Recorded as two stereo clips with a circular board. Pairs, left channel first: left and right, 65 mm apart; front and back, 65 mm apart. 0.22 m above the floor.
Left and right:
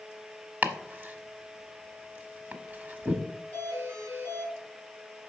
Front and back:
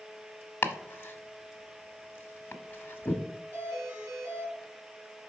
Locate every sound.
0.6 s chopping: 40° right, 0.9 m
3.5 s a doorbell: 135° right, 4 m